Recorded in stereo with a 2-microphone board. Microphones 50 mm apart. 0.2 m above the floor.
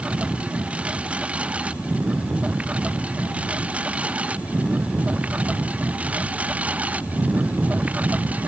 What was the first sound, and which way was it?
A lawn mower, 20° right (ahead or behind).